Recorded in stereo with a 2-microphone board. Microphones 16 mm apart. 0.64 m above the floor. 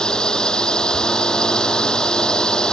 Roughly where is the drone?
Left.